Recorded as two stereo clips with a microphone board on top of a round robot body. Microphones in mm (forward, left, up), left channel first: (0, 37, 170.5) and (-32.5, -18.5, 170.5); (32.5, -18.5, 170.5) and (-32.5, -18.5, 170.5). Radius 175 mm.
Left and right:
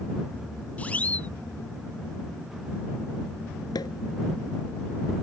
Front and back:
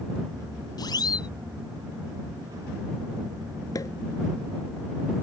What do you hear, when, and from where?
0.8 s a siren: 10° right
3.8 s a pop: 35° left